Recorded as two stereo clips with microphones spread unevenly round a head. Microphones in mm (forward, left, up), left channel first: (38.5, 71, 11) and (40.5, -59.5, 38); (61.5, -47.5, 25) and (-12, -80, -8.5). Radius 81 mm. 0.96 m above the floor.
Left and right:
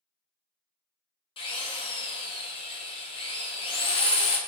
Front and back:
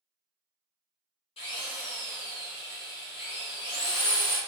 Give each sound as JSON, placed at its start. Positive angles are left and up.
{"t": 1.4, "sound": "a drill", "azimuth_deg": 55, "distance_m": 0.6}